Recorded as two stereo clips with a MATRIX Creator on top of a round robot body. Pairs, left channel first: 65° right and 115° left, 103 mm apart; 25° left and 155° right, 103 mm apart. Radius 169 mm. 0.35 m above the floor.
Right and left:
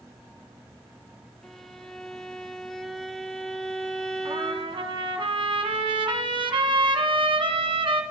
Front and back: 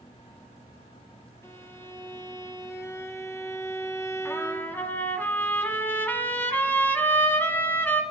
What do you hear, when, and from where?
1.4 s a violin: 10° left, 1.1 m
4.2 s a trumpet: 90° left, 1.5 m